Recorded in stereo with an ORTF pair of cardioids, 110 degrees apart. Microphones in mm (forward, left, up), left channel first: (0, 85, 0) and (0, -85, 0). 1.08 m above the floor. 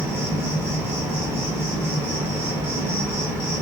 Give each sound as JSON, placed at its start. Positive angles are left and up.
{"t": 0.0, "sound": "an insect", "azimuth_deg": -15, "distance_m": 0.8}